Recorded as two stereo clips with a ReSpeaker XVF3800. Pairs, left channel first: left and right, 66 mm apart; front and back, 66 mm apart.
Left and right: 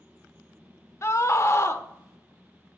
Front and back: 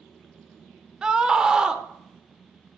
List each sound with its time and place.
1.0 s a scream: 105° left, 1.1 m